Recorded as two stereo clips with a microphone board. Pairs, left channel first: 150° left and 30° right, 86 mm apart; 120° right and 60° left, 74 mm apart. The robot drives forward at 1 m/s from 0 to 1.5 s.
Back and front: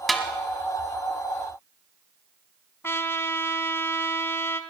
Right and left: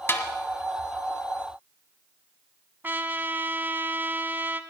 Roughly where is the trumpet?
Left.